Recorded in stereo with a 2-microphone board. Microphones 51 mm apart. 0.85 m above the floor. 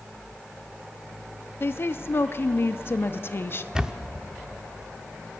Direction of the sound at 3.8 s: 10° right (ahead or behind).